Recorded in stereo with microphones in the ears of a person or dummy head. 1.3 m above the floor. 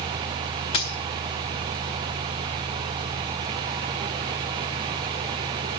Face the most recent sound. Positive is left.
turn(degrees=20)  # may be behind; listen again after turning